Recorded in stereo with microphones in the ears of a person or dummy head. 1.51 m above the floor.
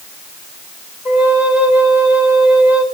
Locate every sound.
1.1 s a flute: 15° right (ahead or behind), 4 m